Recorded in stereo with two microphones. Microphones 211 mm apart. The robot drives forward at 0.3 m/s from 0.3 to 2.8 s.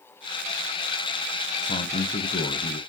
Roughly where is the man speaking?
Left.